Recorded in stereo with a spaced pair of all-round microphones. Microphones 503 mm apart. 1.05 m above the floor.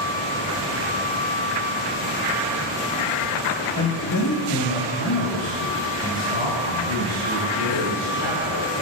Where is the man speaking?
40° left (ahead or behind), 1.4 m.